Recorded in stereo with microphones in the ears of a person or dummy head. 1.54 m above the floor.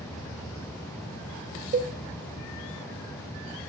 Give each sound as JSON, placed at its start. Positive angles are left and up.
{"t": 1.7, "sound": "a cowbell", "side_deg": -45, "distance_m": 1.2}